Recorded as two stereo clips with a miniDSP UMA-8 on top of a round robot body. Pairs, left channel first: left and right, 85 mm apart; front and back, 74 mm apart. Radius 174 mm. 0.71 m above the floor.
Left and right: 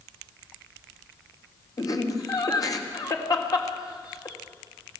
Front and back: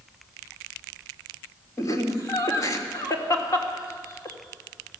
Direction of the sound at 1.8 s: 45° left.